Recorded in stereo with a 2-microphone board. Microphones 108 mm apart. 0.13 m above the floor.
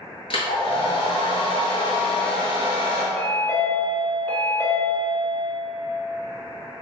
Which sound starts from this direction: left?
A hair dryer, at 0.3 s.